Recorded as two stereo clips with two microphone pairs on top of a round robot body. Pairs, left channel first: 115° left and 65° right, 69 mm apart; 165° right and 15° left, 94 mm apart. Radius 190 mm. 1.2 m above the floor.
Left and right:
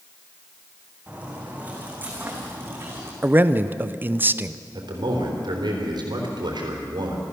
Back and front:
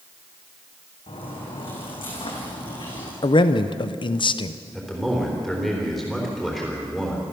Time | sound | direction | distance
1.1 | footsteps | 140° right | 3.5 m
3.2 | a man speaking | 130° right | 0.7 m
4.7 | a man speaking | 80° right | 3.5 m